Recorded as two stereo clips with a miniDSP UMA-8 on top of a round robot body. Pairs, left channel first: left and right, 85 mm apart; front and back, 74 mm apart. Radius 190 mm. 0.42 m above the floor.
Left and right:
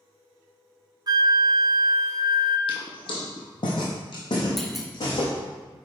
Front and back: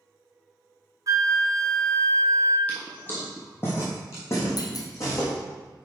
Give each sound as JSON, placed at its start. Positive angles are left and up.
{"t": 1.1, "sound": "a flute", "azimuth_deg": -135, "distance_m": 0.5}
{"t": 2.7, "sound": "footsteps", "azimuth_deg": 70, "distance_m": 1.3}
{"t": 4.6, "sound": "a clunk", "azimuth_deg": 0, "distance_m": 1.1}